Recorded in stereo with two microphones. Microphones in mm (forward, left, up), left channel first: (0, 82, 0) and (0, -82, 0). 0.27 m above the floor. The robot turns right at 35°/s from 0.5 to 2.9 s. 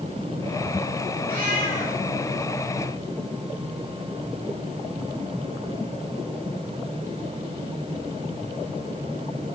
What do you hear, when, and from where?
1.3 s a cat meowing: 65° right (ahead or behind), 3 m; by 2.0 s 40° right (ahead or behind), 3 m